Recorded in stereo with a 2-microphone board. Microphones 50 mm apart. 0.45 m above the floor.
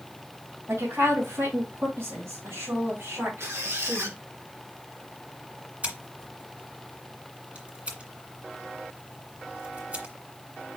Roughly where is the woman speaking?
Right.